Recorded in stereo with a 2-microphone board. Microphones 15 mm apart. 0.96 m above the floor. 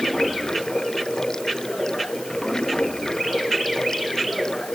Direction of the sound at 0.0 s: 45° left (ahead or behind).